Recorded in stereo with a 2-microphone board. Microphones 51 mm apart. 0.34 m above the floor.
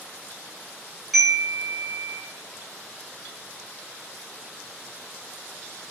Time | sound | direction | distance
1.1 | a chime | centre (ahead or behind) | 1.7 m